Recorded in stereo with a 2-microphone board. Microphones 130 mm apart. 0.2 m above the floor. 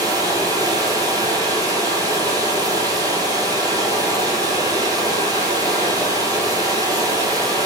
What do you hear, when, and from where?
0.0 s running water: 30° right (ahead or behind), 1.2 m